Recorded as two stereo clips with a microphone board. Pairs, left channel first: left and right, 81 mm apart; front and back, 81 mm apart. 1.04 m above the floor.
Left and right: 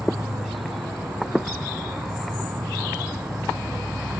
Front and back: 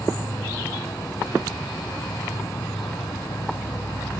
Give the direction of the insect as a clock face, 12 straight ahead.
1 o'clock.